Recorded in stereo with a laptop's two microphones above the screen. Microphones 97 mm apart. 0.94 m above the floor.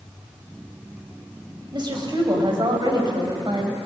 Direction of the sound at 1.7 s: 50° right (ahead or behind).